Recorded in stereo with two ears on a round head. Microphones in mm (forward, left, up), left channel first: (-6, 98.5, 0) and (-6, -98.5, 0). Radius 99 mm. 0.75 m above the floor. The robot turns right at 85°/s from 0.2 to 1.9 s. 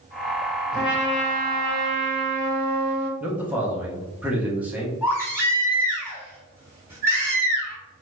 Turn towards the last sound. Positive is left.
turn(degrees=-10)  # may be behind; listen again after turning